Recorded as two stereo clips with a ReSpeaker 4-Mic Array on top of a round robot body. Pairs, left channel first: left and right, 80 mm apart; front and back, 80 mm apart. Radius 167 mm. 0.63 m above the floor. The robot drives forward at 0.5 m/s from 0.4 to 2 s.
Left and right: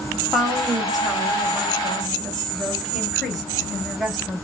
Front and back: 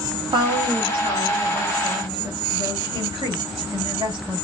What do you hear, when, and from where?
0.3 s a woman speaking: 175° right, 1.9 m